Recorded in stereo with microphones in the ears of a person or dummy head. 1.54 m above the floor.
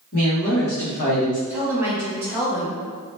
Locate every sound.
0.1 s a woman speaking: 65° left (ahead or behind), 1.9 m; by 1.4 s 35° left (ahead or behind), 1.0 m
1.5 s a woman speaking: 15° right (ahead or behind), 1.2 m